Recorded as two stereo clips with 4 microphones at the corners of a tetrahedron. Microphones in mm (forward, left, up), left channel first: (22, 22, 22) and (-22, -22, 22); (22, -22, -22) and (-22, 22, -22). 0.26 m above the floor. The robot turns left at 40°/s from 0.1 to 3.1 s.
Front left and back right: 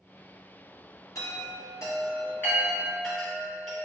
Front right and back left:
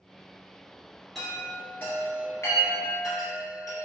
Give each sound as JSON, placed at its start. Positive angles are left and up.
{"t": 1.1, "sound": "a chime", "azimuth_deg": 45, "distance_m": 1.9}